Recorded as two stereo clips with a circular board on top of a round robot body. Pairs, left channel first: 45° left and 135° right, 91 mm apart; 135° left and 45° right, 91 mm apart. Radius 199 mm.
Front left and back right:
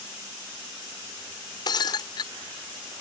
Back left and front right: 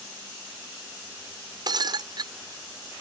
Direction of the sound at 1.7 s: Straight ahead.